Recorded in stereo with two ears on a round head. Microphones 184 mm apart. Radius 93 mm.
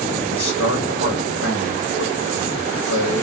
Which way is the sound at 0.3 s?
75° left (ahead or behind).